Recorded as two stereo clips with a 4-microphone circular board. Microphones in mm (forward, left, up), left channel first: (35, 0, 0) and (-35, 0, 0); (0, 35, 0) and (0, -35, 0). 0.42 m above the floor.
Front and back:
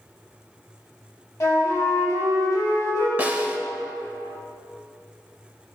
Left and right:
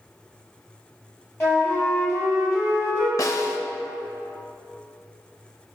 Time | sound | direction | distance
1.4 | a flute | 40° left | 2 m
3.2 | a snare drum | 115° left | 0.7 m